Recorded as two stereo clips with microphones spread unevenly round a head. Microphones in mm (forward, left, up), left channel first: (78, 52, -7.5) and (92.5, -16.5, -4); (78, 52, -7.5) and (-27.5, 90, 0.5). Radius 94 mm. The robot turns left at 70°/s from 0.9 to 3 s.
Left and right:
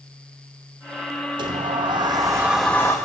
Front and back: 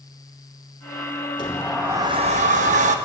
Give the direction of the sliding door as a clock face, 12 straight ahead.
3 o'clock.